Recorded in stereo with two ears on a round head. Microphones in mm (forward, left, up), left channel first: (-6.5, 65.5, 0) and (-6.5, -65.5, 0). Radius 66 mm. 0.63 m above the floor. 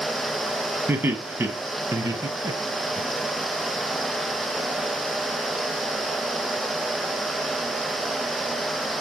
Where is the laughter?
15° right (ahead or behind), 4.5 m; by 3.0 s 30° right (ahead or behind), 3 m.